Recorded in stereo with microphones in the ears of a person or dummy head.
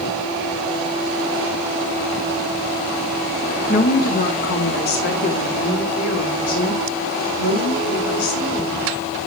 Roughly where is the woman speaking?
Left.